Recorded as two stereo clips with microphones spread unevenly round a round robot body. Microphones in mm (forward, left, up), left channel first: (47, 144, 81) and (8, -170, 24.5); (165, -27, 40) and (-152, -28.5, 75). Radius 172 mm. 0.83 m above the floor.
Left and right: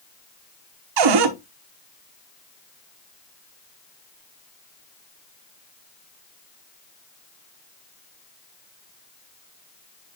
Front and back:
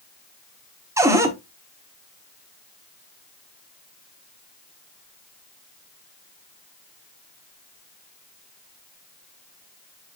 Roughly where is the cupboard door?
Right.